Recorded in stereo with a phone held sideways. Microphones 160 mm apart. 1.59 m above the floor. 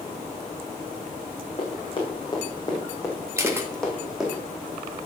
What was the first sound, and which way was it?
Running footsteps, 35° left (ahead or behind).